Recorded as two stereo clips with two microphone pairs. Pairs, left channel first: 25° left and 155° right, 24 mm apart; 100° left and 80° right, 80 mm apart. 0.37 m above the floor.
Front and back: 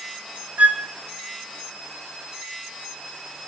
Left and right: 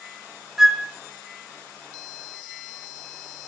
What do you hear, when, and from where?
0.6 s a flute: 165° right, 1.1 m